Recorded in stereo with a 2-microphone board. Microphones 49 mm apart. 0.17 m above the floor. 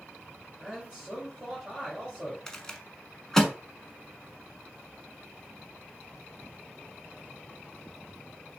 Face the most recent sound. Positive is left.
turn(degrees=15)  # may be behind; listen again after turning